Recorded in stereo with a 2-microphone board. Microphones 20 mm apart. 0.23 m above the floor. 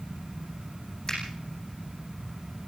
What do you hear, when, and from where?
1.1 s a finger snap: 30° left (ahead or behind), 9.5 m